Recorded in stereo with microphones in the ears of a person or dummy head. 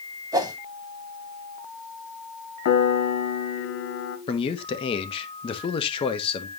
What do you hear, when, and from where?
0.3 s a whoosh: 20° right (ahead or behind), 1.2 m
2.6 s a piano: 65° left (ahead or behind), 1.3 m
4.3 s a man speaking: 30° left (ahead or behind), 1.2 m